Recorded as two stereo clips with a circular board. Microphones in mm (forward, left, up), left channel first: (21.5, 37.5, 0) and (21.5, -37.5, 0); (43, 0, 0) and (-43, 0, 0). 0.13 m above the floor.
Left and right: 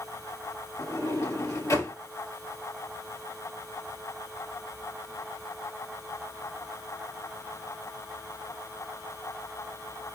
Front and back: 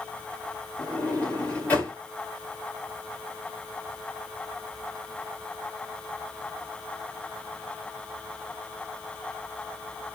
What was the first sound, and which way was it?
A sliding door, 70° left.